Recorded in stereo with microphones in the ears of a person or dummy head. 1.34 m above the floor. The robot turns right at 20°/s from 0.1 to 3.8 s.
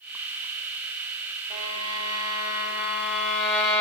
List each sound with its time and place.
1.5 s a violin: 40° right, 3 m; by 3.8 s 5° left, 3 m